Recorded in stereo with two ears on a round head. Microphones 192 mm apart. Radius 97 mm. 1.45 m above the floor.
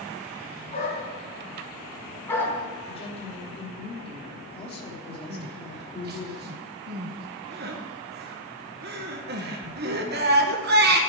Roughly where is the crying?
Right.